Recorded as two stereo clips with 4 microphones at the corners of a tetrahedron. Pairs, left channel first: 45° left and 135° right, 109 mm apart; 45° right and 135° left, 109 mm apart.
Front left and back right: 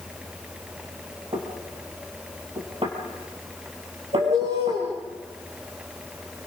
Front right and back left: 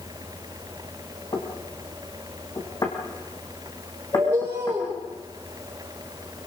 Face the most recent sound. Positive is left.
turn(degrees=-160)